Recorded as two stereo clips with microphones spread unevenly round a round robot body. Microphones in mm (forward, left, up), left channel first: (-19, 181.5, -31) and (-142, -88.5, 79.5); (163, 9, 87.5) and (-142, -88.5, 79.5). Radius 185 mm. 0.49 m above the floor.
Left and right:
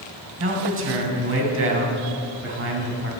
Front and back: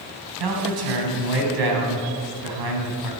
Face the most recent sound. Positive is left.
turn(degrees=-165)